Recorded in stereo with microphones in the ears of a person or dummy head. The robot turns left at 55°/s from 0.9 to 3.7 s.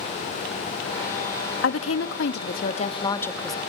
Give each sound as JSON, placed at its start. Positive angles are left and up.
{"t": 1.6, "sound": "a woman speaking", "azimuth_deg": 105, "distance_m": 2.0}